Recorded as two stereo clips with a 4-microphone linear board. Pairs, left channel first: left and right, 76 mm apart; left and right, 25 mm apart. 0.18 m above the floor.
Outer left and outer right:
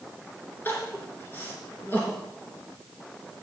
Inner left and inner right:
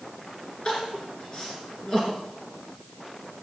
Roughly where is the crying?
Left.